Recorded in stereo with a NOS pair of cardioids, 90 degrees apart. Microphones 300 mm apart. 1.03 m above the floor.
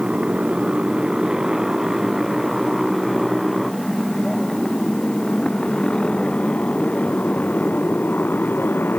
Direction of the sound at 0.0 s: 5° right.